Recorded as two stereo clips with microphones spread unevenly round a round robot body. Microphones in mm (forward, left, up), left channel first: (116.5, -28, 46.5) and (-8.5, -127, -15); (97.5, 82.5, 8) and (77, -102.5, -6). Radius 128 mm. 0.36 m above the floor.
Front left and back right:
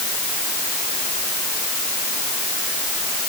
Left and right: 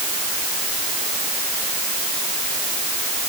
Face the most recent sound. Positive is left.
No sound to turn to.